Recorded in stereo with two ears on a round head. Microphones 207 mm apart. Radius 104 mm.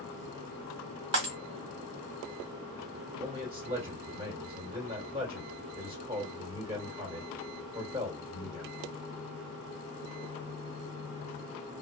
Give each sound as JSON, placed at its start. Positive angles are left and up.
{"t": 1.1, "sound": "breaking glass", "side_deg": -50, "distance_m": 1.4}
{"t": 3.2, "sound": "a man speaking", "side_deg": -25, "distance_m": 1.8}